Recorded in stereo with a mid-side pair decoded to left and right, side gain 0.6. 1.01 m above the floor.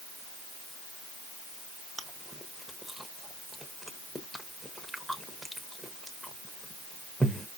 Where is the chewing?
10° right, 0.8 m.